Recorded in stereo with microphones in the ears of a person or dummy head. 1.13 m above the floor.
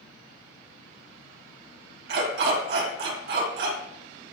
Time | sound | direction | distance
2.1 | a dog barking | 65° right (ahead or behind) | 2 m